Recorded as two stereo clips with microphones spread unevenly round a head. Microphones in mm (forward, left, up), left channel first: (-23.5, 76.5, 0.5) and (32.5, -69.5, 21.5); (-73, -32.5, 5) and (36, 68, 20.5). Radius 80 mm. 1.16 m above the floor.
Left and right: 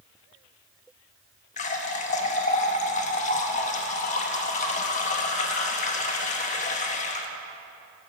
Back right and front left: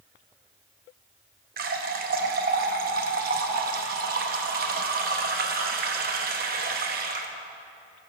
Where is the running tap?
65° left, 0.9 m.